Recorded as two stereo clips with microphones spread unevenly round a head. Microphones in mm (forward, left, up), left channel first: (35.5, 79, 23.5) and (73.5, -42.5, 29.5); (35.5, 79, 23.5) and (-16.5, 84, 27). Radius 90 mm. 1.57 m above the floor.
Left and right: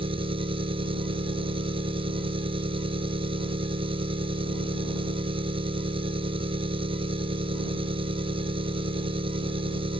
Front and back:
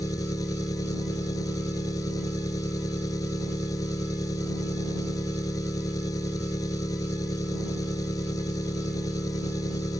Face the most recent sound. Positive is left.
turn(degrees=-25)